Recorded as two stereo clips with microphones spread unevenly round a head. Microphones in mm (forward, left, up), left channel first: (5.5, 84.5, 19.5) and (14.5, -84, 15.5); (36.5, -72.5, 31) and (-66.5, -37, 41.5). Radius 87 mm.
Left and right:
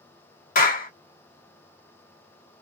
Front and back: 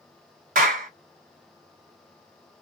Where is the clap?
140° left, 1.4 m.